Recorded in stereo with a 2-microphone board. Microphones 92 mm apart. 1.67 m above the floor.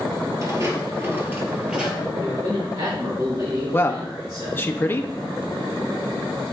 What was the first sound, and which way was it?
Footsteps, 35° right (ahead or behind).